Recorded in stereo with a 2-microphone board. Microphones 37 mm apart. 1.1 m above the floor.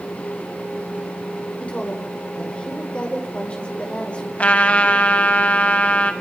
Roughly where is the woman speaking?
Left.